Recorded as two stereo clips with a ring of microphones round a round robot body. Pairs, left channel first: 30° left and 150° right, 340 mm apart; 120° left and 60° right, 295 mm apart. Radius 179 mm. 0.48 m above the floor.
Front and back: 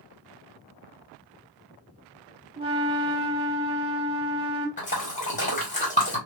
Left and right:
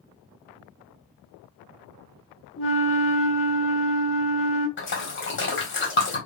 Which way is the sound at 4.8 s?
90° left.